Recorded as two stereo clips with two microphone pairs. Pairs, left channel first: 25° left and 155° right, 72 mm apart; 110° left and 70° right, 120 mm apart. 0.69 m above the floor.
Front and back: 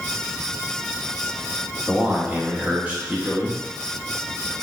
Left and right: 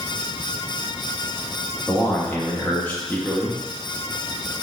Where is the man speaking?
165° left, 1.0 m.